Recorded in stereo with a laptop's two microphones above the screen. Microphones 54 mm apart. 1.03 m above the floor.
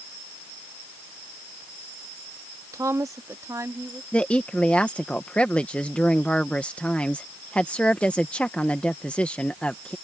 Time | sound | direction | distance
2.7 | a woman speaking | 75° right (ahead or behind) | ?
4.1 | a woman speaking | 20° left (ahead or behind) | ?